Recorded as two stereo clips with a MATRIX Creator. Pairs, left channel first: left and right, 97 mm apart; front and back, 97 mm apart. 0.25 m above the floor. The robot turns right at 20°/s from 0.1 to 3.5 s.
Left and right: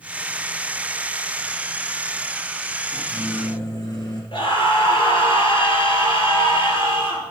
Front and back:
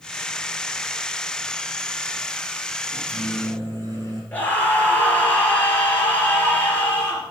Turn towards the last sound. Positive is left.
turn(degrees=70)